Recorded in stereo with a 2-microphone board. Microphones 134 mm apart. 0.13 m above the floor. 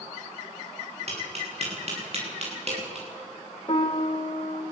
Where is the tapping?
50° right (ahead or behind), 9 m.